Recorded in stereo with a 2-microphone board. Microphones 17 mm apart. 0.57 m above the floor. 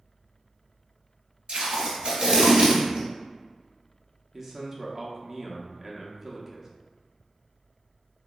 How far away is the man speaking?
About 0.9 m.